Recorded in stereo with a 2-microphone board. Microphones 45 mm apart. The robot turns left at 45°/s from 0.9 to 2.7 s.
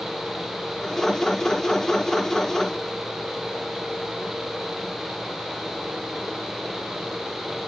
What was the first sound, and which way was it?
Only background noise.